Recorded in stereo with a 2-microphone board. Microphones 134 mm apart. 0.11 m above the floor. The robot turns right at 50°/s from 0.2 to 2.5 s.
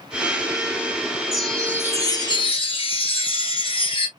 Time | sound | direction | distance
1.3 | a chime | 5° right | 1.7 m